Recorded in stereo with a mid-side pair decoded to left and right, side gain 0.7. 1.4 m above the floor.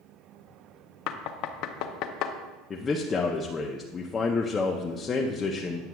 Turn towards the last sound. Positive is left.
turn(degrees=30)